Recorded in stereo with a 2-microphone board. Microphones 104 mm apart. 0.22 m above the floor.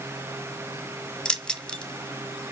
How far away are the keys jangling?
About 1.0 m.